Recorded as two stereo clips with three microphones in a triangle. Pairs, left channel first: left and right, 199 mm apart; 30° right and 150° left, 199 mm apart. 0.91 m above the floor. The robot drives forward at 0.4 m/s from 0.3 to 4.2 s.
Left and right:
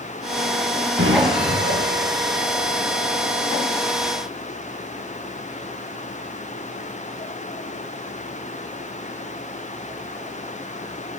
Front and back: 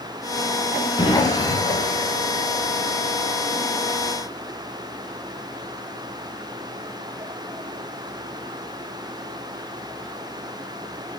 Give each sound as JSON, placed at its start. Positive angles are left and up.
{"t": 1.0, "sound": "an explosion", "azimuth_deg": -95, "distance_m": 5.5}